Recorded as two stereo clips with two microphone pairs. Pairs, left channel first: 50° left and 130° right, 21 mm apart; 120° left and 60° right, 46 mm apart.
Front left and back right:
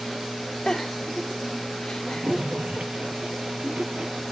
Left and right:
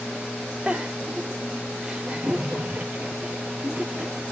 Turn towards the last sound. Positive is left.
turn(degrees=-120)